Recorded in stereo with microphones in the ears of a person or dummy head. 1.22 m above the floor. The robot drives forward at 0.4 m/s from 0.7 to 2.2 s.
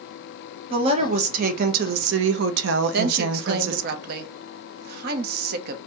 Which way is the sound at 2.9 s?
55° right (ahead or behind).